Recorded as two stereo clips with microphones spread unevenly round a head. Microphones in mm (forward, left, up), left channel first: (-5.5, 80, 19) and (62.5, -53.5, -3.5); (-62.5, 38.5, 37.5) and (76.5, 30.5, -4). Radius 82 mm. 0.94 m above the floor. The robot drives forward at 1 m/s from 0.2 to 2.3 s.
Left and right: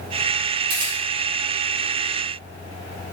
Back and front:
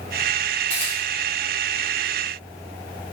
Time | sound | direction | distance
0.7 | a camera shutter | 105° right | 0.9 m